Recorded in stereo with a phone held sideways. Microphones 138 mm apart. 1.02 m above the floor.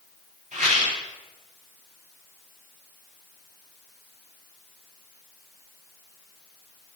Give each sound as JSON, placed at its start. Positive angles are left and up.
{"t": 0.5, "sound": "a rattle", "side_deg": -65, "distance_m": 7.5}